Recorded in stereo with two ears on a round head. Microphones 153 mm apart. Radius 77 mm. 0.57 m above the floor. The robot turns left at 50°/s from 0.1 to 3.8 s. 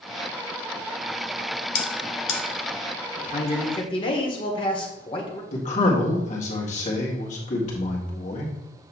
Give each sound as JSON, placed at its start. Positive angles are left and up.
{"t": 1.8, "sound": "a bell", "side_deg": 70, "distance_m": 1.3}
{"t": 3.2, "sound": "a man speaking", "azimuth_deg": 65, "distance_m": 1.5}
{"t": 5.5, "sound": "a man speaking", "side_deg": 45, "distance_m": 1.8}